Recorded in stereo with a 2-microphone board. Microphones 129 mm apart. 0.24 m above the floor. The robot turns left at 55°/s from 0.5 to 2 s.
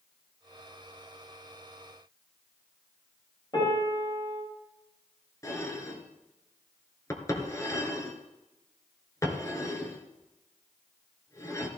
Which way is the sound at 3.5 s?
35° left (ahead or behind).